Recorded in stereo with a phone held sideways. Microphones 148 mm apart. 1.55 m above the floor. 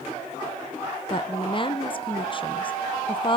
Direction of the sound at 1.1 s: 35° left (ahead or behind).